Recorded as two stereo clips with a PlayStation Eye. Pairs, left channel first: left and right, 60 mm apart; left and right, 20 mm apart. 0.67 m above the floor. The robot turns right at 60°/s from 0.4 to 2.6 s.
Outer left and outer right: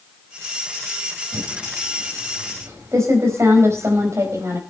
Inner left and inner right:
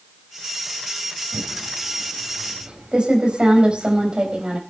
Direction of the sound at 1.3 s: 50° right (ahead or behind).